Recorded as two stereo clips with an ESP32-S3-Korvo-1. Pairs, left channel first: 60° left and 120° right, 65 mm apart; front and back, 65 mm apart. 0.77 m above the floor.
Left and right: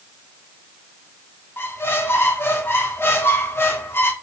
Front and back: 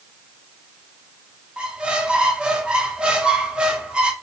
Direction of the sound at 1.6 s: 105° left.